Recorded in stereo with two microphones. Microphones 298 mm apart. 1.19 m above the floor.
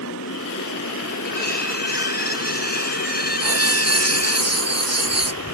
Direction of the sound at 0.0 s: 60° left (ahead or behind).